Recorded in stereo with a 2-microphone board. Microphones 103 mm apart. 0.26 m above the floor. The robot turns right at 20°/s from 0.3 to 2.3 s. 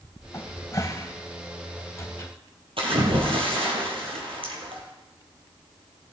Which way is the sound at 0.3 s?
35° left (ahead or behind).